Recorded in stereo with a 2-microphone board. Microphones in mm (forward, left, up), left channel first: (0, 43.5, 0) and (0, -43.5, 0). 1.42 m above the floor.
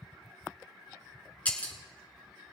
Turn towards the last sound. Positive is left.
turn(degrees=15)  # may be behind; listen again after turning